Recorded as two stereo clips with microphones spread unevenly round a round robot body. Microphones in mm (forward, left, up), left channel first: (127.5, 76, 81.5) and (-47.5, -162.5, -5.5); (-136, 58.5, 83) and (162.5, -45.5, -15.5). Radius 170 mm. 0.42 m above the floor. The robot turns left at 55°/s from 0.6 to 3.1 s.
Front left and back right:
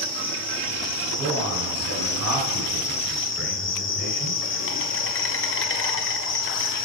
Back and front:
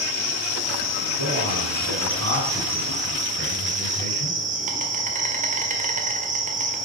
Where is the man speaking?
70° right, 3.5 m; by 4.4 s 175° right, 3.5 m.